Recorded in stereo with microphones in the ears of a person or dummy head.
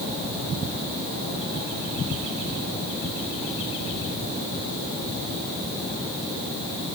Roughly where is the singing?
I don't hear singing.